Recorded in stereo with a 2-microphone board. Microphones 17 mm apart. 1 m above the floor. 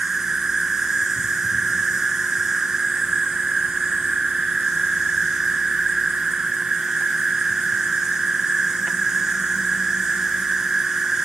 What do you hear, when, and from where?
0.0 s an insect: 45° right (ahead or behind), 1.4 m